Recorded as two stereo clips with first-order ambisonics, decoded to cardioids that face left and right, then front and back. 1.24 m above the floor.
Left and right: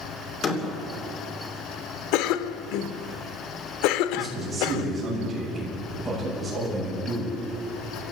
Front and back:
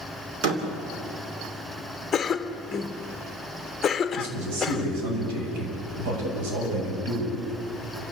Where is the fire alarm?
No fire alarm in this recording.